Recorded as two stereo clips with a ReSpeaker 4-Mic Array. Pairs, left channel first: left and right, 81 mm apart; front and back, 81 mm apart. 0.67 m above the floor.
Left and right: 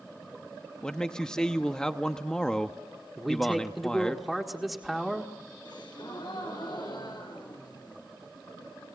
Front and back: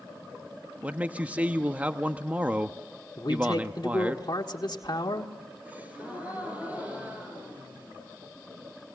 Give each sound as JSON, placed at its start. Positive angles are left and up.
{"t": 0.8, "sound": "a man speaking", "azimuth_deg": 155, "distance_m": 0.8}
{"t": 3.2, "sound": "a man speaking", "azimuth_deg": 0, "distance_m": 1.5}
{"t": 5.7, "sound": "a gasp", "azimuth_deg": 110, "distance_m": 4.5}